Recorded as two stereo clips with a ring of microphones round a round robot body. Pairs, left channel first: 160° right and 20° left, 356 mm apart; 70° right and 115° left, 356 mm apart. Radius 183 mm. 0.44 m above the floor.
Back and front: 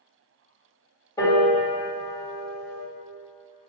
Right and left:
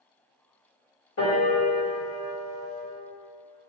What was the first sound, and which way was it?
A piano, 85° right.